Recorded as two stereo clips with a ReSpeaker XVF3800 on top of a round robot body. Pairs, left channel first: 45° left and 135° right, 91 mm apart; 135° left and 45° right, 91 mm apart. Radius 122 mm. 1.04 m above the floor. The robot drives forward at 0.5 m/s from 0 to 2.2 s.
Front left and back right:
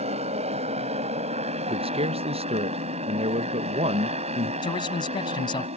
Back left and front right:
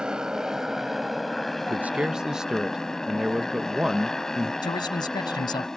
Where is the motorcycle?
130° right; by 5.8 s 140° right.